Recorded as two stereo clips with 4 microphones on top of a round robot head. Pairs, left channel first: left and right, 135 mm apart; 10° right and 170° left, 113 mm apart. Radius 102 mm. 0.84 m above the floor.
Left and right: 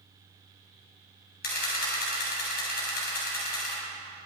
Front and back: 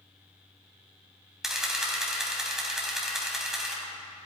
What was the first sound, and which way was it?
A camera shutter, 85° left.